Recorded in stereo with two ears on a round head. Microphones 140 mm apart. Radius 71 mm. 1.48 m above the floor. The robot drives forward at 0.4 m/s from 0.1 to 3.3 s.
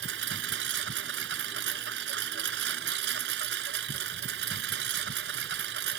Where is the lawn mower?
80° right.